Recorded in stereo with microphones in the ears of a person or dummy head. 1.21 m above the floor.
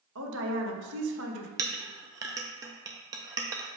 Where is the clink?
15° right (ahead or behind), 0.5 m.